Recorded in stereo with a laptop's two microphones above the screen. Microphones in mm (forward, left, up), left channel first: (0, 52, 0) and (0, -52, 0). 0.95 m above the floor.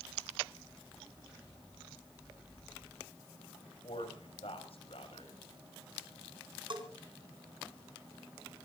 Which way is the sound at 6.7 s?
50° right (ahead or behind).